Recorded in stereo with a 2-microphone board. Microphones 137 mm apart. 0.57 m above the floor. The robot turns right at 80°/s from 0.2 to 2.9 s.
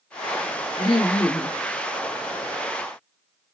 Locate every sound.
0.8 s laughter: 120° left, 1.7 m; by 1.6 s 175° right, 1.7 m